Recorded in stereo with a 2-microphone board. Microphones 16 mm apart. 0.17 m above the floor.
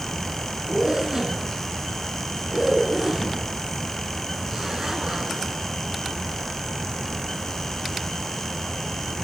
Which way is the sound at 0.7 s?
35° right (ahead or behind).